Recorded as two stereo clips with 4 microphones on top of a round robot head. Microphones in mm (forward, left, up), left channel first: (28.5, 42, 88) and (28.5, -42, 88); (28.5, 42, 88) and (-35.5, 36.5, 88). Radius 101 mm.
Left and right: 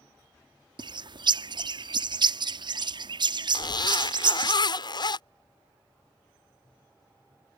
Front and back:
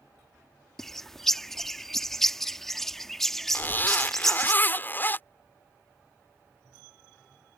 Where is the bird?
80° right.